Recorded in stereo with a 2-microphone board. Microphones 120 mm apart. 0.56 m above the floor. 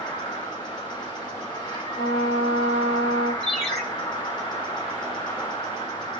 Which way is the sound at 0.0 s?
35° left (ahead or behind).